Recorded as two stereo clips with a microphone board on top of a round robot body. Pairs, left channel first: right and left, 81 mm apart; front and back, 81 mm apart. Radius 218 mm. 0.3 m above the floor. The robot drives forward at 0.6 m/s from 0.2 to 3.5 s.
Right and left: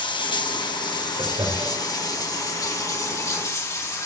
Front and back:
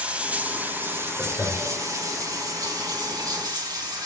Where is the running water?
105° right, 2 m; by 4.1 s 140° right, 3.5 m.